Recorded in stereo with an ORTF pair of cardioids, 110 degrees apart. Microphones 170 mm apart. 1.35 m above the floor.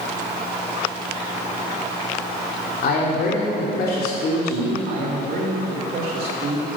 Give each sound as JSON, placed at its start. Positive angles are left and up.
{"t": 2.8, "sound": "a man speaking", "azimuth_deg": 60, "distance_m": 3.0}
{"t": 4.9, "sound": "a man speaking", "azimuth_deg": -60, "distance_m": 2.5}